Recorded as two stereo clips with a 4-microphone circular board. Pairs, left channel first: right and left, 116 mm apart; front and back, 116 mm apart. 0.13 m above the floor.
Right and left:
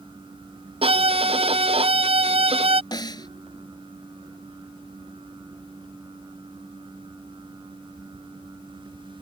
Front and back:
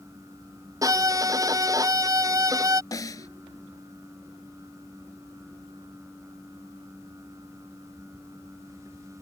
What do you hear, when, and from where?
0.8 s a violin: 120° left
2.9 s a snare drum: 50° right